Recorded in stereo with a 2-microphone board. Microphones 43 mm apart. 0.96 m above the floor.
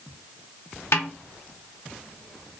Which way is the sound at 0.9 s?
65° left (ahead or behind).